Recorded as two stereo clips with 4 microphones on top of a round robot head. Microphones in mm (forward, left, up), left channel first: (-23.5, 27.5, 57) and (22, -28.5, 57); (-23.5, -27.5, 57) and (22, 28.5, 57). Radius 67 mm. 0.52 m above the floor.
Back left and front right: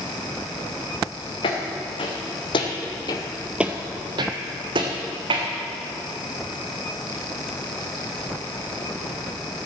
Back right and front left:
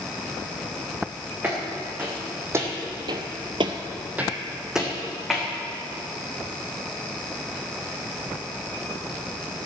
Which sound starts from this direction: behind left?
Footsteps, at 1.4 s.